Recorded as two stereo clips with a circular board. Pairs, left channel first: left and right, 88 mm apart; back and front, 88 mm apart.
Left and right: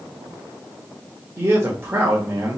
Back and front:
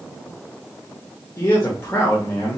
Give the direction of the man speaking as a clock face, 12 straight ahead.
5 o'clock.